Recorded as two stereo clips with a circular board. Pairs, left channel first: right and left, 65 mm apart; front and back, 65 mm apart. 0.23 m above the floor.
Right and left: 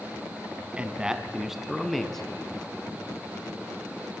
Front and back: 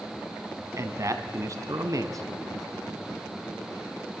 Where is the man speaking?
160° left, 2.5 m; by 2.7 s 165° right, 3 m.